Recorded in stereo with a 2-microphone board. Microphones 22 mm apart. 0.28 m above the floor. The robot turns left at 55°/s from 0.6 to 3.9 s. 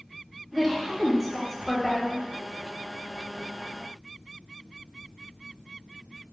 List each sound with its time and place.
0.5 s a woman speaking: 155° right, 1.0 m; by 2.3 s 115° left, 1.0 m